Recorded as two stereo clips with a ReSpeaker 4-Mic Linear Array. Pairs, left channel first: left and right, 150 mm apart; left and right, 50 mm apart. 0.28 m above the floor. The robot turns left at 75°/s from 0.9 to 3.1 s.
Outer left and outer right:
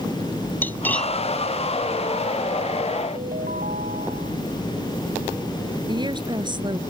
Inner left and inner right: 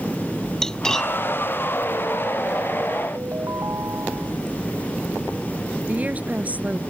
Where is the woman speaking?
30° right (ahead or behind).